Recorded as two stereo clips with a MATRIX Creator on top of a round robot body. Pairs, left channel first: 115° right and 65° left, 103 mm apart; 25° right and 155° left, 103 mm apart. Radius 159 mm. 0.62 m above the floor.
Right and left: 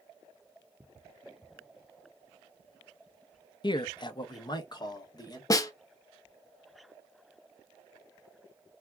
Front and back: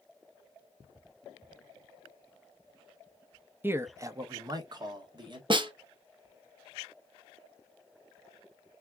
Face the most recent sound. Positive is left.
turn(degrees=-165)